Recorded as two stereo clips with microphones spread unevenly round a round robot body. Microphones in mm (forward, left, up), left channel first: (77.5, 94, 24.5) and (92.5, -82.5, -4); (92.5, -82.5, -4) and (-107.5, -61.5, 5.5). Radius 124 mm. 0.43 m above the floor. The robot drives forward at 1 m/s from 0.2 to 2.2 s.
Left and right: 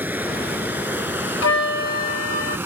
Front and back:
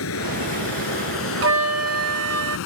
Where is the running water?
5° right.